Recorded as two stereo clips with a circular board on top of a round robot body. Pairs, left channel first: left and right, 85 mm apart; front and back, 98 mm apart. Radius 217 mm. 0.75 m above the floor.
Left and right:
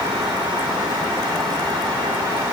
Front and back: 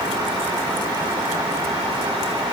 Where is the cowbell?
No cowbell in this recording.